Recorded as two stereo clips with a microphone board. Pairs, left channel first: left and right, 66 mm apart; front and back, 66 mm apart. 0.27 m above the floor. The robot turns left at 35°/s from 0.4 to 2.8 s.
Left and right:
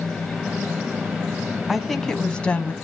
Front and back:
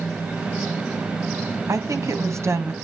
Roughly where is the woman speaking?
Behind.